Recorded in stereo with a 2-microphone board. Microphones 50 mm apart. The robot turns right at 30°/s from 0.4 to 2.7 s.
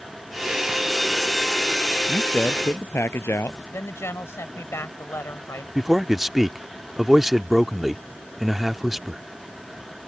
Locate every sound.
2.1 s a man speaking: 35° left (ahead or behind); by 3.6 s 50° left (ahead or behind)
3.7 s a woman speaking: 60° left (ahead or behind)
5.8 s a man speaking: 5° right (ahead or behind)